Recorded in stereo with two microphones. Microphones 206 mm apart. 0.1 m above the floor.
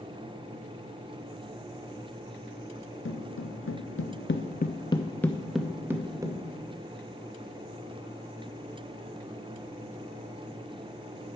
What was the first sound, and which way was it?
Footsteps, 70° left (ahead or behind).